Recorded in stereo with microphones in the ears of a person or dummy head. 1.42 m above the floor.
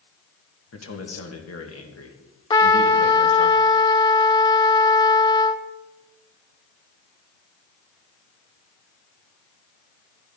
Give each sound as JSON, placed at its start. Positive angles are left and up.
{"t": 0.7, "sound": "a man speaking", "side_deg": 75, "distance_m": 2.0}
{"t": 2.5, "sound": "a trumpet", "side_deg": 25, "distance_m": 0.7}